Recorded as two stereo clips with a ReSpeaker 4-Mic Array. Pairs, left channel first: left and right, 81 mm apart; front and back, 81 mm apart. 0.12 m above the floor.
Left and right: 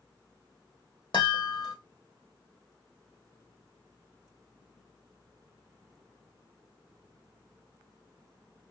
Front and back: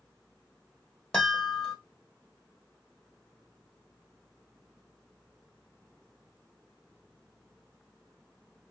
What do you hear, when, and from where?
1.1 s a chime: 80° left, 2.5 m